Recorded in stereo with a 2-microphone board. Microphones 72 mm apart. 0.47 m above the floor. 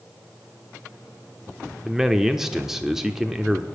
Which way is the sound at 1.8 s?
10° right (ahead or behind).